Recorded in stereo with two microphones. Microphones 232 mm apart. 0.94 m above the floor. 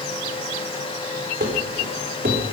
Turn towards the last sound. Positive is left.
turn(degrees=-40)  # may be behind; listen again after turning